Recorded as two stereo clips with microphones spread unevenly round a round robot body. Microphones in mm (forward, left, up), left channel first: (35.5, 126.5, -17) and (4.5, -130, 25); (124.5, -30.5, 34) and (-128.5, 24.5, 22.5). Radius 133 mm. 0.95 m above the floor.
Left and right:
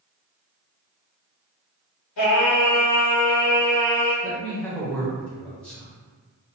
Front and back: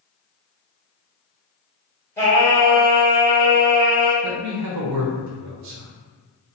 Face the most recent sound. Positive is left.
turn(degrees=165)